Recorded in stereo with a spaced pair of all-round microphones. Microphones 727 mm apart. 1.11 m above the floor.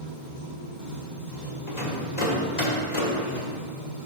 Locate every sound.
0.0 s running water: 75° left (ahead or behind), 2.5 m
1.7 s a rattle: 65° left (ahead or behind), 1.5 m